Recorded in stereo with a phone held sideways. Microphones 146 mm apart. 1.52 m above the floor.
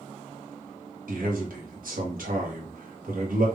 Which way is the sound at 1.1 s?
70° right (ahead or behind).